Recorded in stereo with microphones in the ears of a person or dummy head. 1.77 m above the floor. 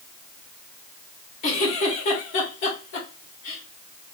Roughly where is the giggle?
Left.